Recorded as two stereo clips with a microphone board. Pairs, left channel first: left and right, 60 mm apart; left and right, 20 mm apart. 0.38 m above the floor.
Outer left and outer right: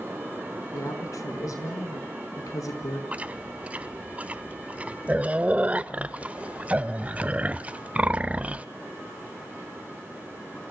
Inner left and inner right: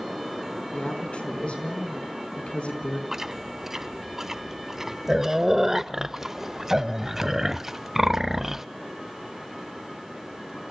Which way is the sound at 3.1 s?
20° right (ahead or behind).